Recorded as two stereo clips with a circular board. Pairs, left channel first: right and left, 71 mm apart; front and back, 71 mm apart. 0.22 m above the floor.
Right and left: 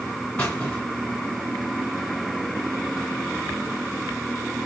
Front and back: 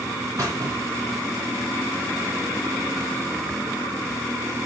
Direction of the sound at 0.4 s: 155° right.